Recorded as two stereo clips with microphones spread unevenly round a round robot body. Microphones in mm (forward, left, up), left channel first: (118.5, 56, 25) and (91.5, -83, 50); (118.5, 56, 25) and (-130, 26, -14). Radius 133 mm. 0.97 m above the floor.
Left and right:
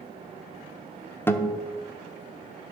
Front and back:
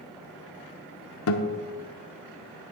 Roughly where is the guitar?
Ahead.